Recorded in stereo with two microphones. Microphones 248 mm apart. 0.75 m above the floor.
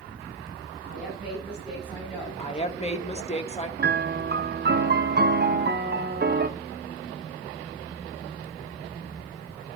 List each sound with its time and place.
0.8 s a woman speaking: 5° right (ahead or behind), 5.5 m
2.4 s a woman speaking: 25° left (ahead or behind), 1.1 m
3.8 s a piano: 40° right (ahead or behind), 0.6 m